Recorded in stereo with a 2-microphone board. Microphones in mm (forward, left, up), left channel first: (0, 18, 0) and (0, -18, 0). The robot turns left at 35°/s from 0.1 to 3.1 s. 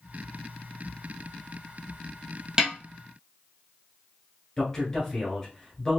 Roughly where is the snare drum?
Right.